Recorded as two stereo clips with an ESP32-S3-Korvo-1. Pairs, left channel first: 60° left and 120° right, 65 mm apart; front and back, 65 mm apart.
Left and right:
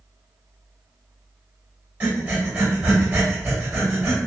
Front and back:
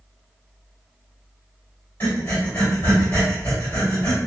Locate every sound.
2.0 s breathing: 60° right, 2.0 m